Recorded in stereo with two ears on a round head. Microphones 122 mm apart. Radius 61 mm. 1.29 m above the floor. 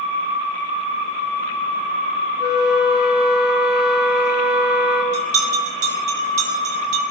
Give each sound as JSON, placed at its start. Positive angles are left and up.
{"t": 2.4, "sound": "a flute", "side_deg": -5, "distance_m": 3.5}
{"t": 5.1, "sound": "a bell", "side_deg": -55, "distance_m": 1.7}